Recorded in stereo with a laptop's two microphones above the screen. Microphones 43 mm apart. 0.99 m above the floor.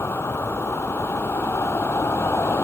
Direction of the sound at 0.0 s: 80° left.